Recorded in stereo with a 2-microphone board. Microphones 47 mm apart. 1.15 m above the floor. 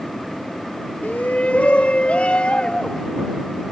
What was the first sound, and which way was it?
A shout, 40° left (ahead or behind).